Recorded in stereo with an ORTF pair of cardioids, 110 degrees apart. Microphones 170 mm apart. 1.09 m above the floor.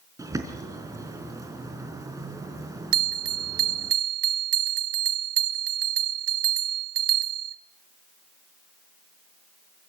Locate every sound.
0.2 s a bird: 20° right, 4 m
2.9 s a bell: 70° right, 1.3 m